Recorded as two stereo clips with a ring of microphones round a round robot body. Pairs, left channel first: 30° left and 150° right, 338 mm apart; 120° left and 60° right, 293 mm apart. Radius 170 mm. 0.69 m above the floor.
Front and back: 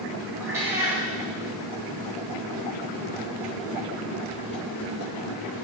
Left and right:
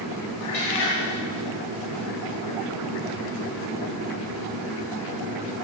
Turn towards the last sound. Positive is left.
turn(degrees=125)